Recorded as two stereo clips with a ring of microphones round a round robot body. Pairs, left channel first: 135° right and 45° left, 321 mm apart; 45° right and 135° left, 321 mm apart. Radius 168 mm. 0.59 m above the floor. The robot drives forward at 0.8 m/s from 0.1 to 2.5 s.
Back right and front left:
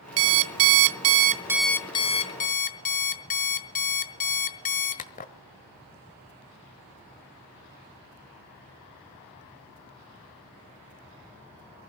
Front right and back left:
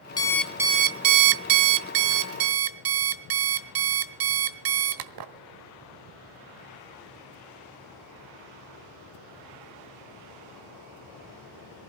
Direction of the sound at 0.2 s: 35° left.